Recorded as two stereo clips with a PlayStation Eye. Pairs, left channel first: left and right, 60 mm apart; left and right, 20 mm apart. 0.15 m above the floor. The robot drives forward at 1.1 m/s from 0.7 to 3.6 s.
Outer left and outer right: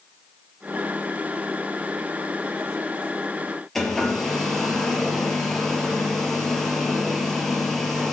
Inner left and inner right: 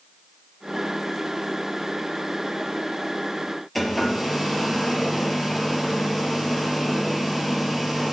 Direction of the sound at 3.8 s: 5° left (ahead or behind).